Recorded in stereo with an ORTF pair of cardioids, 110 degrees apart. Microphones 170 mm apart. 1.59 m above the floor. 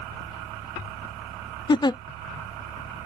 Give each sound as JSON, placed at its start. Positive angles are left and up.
{"t": 1.7, "sound": "a giggle", "azimuth_deg": 25}